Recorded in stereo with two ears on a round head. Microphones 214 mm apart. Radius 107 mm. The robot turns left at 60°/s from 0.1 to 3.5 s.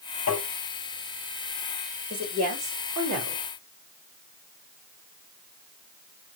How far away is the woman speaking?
About 2 m.